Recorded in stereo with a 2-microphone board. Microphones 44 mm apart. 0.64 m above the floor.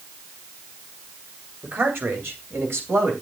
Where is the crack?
I don't hear a crack.